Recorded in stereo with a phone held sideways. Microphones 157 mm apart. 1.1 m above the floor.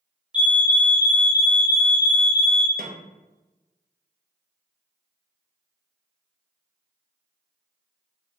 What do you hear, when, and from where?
0.3 s a fire alarm: 5° right (ahead or behind), 1.0 m
2.8 s a snare drum: 70° right (ahead or behind), 0.7 m